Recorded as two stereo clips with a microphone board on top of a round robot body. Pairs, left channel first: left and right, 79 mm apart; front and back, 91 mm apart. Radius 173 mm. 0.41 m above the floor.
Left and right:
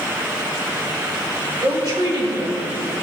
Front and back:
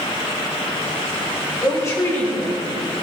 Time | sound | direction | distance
1.6 | a woman speaking | 55° right | 4 m